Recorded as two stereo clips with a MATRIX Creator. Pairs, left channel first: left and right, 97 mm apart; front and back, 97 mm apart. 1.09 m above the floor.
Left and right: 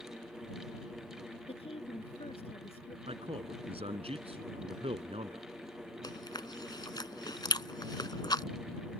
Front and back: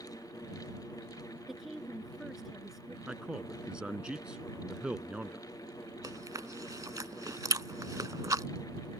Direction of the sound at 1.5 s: 95° left.